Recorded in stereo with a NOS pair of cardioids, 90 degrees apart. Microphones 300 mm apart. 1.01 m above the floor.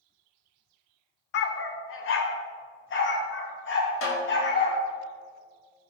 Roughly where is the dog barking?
Ahead left.